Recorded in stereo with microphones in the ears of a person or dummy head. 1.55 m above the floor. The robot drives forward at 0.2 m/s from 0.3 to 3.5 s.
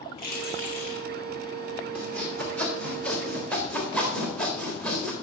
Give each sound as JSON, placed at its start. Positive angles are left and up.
{"t": 0.2, "sound": "keys jangling", "side_deg": 60, "distance_m": 1.8}
{"t": 1.9, "sound": "sawing", "side_deg": 10, "distance_m": 1.3}